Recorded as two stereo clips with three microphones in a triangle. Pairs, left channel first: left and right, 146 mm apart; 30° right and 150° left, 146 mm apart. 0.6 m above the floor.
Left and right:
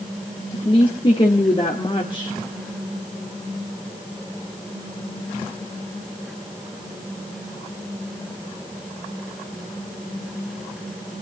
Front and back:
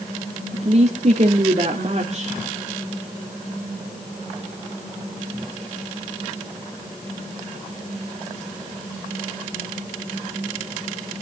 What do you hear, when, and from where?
0.5 s a woman speaking: 130° left, 1.8 m